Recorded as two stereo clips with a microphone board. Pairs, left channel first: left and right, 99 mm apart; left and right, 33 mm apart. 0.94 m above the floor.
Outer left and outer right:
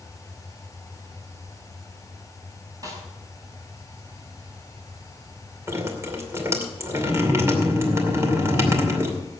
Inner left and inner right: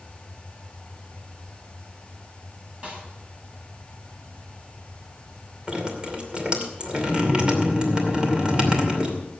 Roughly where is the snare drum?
Right.